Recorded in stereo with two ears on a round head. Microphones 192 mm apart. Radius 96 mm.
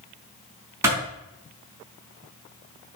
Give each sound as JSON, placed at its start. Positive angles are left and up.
{"t": 0.8, "sound": "a clap", "side_deg": -10, "distance_m": 4.5}